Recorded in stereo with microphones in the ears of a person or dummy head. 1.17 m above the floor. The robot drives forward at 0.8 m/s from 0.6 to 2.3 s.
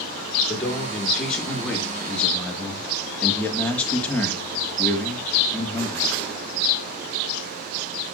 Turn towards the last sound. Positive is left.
turn(degrees=5)  # may be behind; listen again after turning